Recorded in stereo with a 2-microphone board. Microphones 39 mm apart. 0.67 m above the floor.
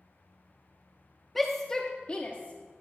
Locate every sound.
1.4 s a shout: 5° left (ahead or behind), 0.9 m; by 2.8 s 45° left (ahead or behind), 1.1 m